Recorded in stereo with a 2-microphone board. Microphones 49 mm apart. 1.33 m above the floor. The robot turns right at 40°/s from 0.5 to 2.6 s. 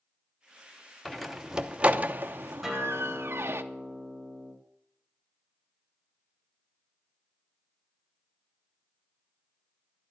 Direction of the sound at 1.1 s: 5° left (ahead or behind).